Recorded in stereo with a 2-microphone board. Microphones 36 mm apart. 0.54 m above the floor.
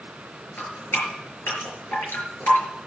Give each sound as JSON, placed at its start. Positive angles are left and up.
{"t": 0.6, "sound": "dripping", "side_deg": 75, "distance_m": 5.0}